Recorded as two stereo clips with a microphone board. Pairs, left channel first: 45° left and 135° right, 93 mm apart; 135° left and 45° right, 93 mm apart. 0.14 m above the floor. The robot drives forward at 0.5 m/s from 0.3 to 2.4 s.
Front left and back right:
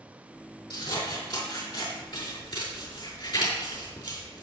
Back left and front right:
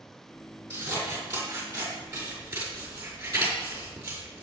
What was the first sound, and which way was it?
Scissors, 20° left.